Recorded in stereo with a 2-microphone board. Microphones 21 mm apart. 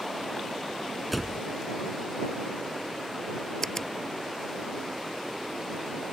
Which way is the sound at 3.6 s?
25° left (ahead or behind).